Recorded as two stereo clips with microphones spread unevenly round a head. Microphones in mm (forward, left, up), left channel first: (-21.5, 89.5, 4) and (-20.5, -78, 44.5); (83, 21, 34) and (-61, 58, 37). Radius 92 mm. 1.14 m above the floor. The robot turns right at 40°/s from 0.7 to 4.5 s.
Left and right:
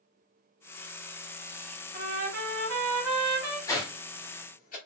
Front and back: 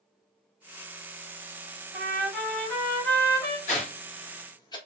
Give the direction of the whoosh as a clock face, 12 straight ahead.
12 o'clock.